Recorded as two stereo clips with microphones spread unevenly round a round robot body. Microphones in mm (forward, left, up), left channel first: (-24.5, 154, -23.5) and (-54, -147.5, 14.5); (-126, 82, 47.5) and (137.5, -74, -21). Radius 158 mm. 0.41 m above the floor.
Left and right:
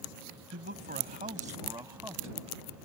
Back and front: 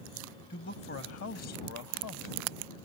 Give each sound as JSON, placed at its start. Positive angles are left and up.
{"t": 0.5, "sound": "a man speaking", "azimuth_deg": -145}